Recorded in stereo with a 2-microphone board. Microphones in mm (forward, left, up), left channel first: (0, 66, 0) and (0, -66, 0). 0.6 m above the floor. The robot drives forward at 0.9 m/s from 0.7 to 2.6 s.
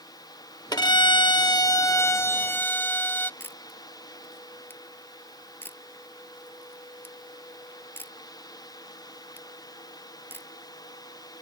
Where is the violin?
30° left (ahead or behind); by 3.3 s 15° left (ahead or behind).